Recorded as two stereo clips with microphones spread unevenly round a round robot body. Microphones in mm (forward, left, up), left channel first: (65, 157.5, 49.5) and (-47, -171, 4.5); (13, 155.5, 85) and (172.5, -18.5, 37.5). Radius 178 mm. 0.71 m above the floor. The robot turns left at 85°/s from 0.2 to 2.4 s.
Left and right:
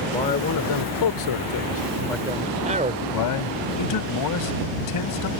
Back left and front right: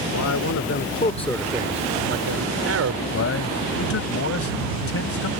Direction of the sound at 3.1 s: 110° left.